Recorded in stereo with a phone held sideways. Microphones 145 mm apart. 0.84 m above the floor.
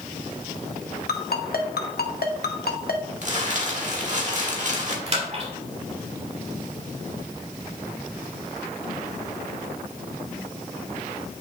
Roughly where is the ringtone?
Left.